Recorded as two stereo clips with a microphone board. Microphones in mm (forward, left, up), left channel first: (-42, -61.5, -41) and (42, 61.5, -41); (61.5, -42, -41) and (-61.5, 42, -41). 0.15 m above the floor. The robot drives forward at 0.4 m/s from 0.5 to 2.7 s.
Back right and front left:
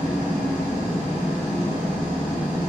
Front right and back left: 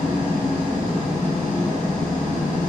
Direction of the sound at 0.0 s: 135° left.